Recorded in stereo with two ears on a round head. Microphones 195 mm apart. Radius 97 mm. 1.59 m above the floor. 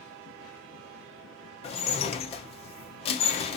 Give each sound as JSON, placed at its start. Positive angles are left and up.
{"t": 1.6, "sound": "dishes clattering", "side_deg": 30, "distance_m": 0.8}